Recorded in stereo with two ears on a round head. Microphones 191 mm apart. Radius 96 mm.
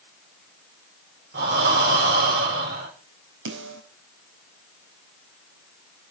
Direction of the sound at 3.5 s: 60° right (ahead or behind).